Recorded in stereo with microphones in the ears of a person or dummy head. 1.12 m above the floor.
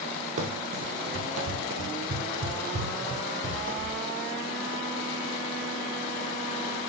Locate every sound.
0.4 s running footsteps: 50° right (ahead or behind), 2 m; by 4.0 s 45° right (ahead or behind), 3.5 m